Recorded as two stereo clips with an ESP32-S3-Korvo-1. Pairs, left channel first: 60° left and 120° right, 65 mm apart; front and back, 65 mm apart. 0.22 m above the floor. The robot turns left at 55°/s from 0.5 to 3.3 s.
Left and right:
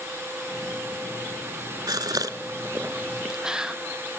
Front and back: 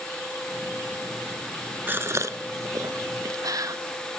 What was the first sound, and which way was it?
A gasp, 120° right.